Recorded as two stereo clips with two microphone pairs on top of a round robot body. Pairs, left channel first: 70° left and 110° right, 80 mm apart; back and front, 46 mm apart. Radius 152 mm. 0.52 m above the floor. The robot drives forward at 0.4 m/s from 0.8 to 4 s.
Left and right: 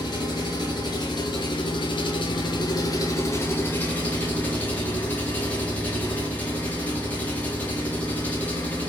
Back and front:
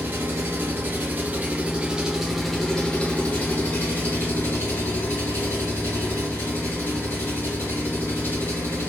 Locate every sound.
0.0 s an engine running: 40° left, 0.8 m; by 8.9 s 140° left, 0.8 m